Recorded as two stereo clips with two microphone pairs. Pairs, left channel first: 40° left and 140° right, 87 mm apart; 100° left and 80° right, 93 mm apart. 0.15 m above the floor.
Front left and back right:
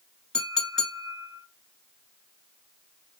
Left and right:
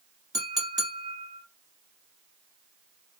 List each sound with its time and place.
0.3 s a clink: 40° right, 1.1 m